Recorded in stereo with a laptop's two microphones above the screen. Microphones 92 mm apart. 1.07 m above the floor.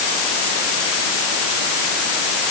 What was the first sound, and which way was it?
Only background noise.